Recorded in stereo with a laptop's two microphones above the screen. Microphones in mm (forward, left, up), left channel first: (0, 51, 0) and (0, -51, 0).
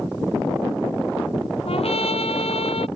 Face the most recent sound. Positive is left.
turn(degrees=70)  # may be behind; listen again after turning